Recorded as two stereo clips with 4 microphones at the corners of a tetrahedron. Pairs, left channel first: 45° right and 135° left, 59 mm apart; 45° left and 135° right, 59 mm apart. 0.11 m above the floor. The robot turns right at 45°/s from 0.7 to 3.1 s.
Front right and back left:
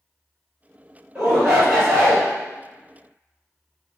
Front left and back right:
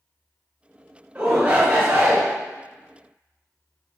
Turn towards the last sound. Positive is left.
turn(degrees=-75)